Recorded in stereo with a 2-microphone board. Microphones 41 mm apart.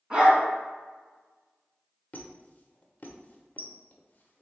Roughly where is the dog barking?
Right.